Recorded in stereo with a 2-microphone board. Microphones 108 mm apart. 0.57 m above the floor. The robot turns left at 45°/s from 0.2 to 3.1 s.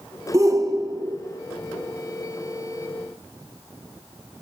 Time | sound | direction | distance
0.3 | a shout | 55° right | 0.7 m